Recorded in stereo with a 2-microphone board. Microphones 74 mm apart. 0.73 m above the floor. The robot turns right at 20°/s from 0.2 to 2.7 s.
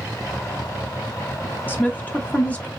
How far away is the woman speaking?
About 0.8 m.